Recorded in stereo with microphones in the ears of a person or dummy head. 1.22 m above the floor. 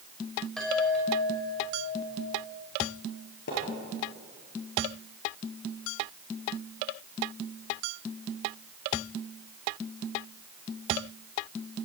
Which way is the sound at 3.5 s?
60° left (ahead or behind).